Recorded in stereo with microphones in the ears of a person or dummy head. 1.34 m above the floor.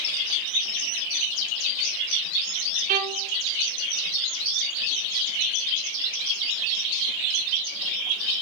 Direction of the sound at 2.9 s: 45° right (ahead or behind).